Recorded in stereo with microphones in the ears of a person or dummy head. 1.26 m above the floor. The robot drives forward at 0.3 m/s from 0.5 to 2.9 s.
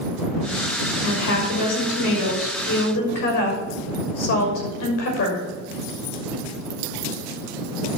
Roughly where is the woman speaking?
Left.